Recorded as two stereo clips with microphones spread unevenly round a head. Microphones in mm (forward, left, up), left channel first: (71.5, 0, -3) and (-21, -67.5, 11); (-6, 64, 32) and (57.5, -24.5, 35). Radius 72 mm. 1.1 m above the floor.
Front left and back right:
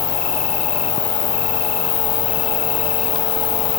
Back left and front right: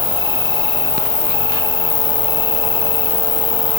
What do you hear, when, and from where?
0.0 s an insect: 80° left